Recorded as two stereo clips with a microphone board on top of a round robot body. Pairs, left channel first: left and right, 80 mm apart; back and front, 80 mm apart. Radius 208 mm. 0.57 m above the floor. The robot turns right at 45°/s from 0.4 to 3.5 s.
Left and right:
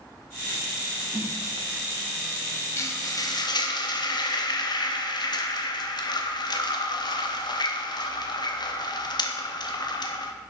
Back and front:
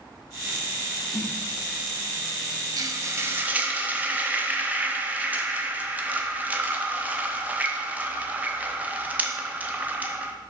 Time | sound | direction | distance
1.1 | a snare drum | 140° right | 1.6 m
2.8 | frying | 35° left | 0.9 m